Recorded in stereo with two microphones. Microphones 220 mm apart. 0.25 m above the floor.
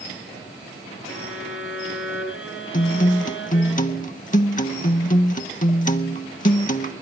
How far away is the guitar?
About 0.6 m.